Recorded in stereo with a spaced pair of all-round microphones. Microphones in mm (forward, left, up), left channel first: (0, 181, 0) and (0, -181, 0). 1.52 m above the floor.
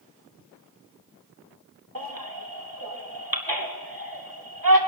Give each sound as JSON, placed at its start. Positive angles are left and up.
{"t": 1.9, "sound": "a baby crying", "side_deg": -70, "distance_m": 2.5}